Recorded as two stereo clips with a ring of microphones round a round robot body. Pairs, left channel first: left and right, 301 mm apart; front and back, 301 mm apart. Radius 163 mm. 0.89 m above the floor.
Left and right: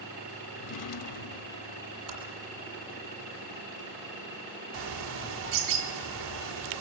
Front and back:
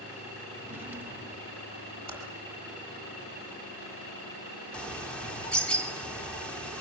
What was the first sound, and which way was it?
A drawer, 95° left.